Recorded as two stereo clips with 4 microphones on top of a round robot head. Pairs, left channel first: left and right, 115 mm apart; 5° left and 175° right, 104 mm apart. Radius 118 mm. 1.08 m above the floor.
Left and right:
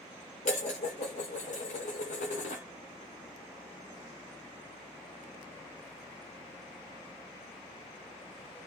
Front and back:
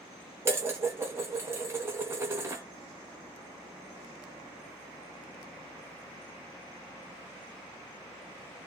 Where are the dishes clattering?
120° left, 0.8 m.